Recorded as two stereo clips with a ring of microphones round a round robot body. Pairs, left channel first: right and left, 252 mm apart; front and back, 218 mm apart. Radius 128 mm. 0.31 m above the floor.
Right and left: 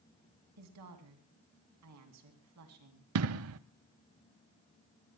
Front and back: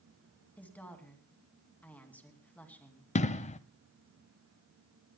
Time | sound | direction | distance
0.6 | a woman speaking | 80° left | 3 m
3.1 | an explosion | 60° left | 0.6 m